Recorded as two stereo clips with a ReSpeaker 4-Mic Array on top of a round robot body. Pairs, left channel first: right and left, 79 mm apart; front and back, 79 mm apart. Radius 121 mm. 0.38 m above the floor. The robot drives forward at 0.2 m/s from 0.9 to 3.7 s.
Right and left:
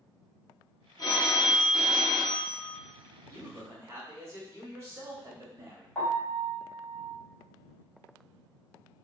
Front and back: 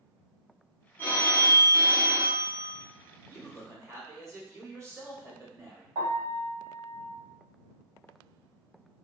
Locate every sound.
1.0 s a phone ringing: 55° right, 1.0 m; by 2.8 s 80° right, 0.9 m
3.3 s a man speaking: 135° left, 1.3 m; by 5.8 s 140° left, 1.4 m
6.0 s a piano: 175° right, 1.8 m